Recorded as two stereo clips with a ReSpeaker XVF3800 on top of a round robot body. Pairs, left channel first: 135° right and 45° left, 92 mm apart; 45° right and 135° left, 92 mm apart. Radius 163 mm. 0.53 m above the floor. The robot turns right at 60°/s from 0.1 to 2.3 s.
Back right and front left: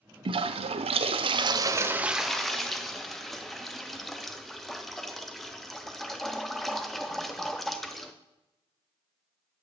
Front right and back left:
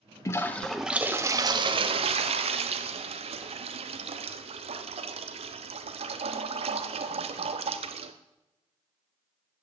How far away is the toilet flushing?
About 0.5 m.